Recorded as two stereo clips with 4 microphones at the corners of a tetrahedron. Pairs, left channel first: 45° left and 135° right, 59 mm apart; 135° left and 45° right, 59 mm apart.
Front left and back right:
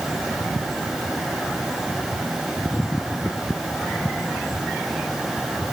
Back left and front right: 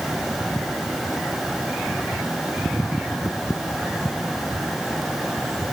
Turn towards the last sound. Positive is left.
No sound to turn to.